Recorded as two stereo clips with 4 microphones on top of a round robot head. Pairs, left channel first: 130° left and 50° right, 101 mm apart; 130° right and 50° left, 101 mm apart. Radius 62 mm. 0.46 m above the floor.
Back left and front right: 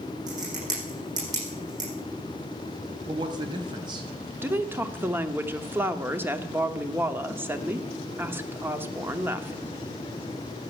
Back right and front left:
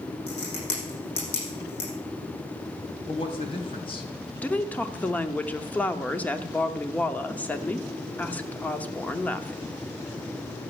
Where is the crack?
100° right, 7.5 m.